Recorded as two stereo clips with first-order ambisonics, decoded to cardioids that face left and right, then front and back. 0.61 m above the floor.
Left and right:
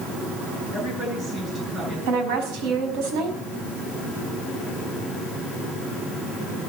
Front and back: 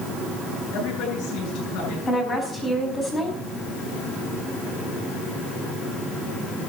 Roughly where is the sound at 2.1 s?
Right.